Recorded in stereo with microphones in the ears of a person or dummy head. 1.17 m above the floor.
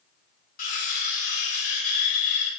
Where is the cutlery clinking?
45° left (ahead or behind), 0.6 m.